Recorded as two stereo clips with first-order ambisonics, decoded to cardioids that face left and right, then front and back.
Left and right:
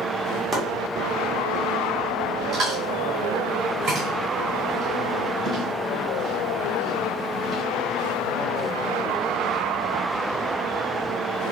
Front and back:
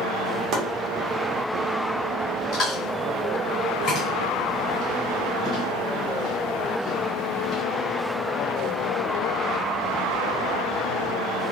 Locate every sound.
0.5 s chopping: 165° right, 0.9 m
2.5 s chewing: 35° right, 1.5 m